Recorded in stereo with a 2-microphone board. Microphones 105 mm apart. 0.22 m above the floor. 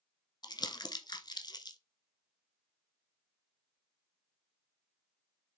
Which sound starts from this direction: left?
Crumpling, at 0.4 s.